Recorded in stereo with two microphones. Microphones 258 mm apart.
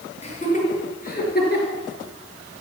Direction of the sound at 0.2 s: 25° left (ahead or behind).